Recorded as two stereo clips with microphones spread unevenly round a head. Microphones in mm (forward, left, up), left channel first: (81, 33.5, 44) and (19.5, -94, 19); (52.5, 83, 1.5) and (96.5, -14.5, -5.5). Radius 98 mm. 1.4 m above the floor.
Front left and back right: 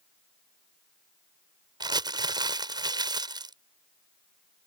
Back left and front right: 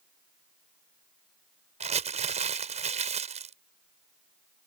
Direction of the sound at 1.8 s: 55° right.